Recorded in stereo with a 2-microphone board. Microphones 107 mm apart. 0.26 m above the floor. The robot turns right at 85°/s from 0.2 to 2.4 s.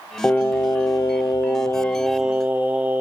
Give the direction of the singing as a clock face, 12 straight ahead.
11 o'clock.